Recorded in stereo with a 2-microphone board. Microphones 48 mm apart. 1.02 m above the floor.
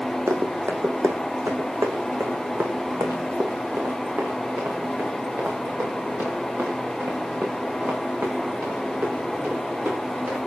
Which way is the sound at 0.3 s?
70° right (ahead or behind).